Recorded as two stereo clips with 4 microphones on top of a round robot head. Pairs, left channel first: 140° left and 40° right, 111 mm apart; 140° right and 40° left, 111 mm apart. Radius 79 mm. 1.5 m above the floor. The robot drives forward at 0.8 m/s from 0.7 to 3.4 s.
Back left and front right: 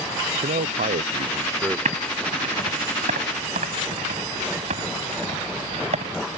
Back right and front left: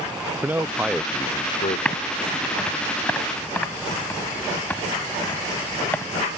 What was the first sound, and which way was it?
A man speaking, 35° right.